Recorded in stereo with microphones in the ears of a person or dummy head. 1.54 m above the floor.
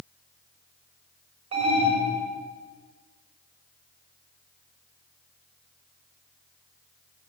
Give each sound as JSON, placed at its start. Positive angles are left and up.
{"t": 1.5, "sound": "an alarm", "side_deg": -30, "distance_m": 6.0}